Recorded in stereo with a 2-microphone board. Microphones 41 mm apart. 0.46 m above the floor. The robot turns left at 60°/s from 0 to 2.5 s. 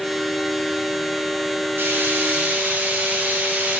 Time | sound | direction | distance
1.8 | frying | 90° right | 4.5 m